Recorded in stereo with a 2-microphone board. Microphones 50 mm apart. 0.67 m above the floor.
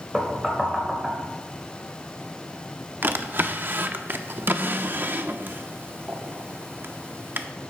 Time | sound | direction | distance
0.1 | knocking | 10° right (ahead or behind) | 1.8 m
3.0 | a drawer | 45° right (ahead or behind) | 0.6 m